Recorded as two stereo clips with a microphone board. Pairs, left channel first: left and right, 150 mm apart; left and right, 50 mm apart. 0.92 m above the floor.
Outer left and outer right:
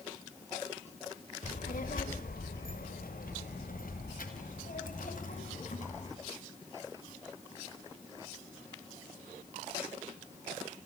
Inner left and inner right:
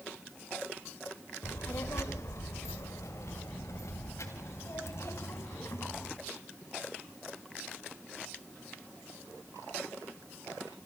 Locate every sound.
1.4 s a child speaking: 65° left (ahead or behind), 1.9 m; by 6.2 s 60° left (ahead or behind), 4 m